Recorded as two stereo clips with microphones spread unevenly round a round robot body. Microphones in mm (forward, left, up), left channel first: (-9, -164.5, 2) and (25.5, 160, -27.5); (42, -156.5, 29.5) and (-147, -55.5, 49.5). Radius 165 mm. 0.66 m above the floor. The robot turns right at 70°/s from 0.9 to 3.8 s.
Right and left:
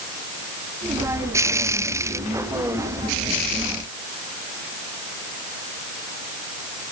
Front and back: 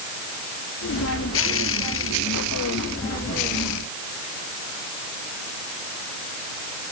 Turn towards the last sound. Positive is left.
No sound to turn to.